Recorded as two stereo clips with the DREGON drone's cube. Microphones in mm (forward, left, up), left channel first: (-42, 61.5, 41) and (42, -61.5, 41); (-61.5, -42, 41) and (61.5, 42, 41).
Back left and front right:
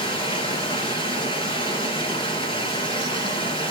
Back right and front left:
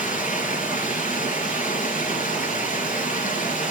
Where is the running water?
Straight behind, 4 m.